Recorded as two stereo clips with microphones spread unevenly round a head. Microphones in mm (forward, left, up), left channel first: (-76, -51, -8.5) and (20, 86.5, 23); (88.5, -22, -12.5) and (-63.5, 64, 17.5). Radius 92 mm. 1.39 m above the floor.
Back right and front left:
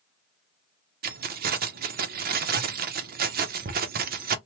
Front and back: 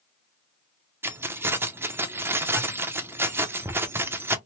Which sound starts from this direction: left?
Keys jangling, at 1.0 s.